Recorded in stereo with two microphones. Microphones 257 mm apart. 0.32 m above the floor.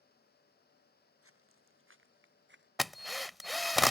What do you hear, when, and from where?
1.2 s footsteps: 60° right (ahead or behind); by 2.7 s 45° right (ahead or behind)
2.8 s a drill: centre (ahead or behind)